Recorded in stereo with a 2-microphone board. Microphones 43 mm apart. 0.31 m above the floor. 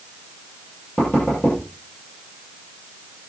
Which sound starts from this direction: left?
Knocking, at 1.0 s.